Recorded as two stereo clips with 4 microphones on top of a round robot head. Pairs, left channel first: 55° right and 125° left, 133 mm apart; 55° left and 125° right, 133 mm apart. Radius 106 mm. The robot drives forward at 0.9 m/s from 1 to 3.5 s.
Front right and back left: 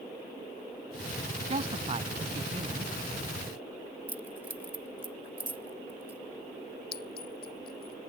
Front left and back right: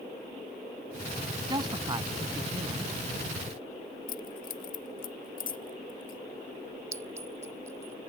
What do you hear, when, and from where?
1.5 s a man speaking: 170° left; by 2.9 s 175° left
4.1 s keys jangling: 50° left
6.9 s a clink: 55° right